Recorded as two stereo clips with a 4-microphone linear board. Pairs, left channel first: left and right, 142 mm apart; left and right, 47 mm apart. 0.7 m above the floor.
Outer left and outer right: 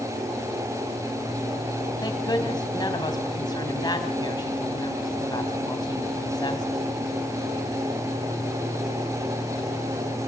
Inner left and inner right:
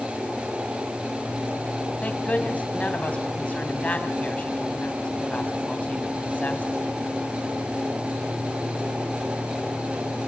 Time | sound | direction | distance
2.0 | a woman speaking | 30° left (ahead or behind) | 4 m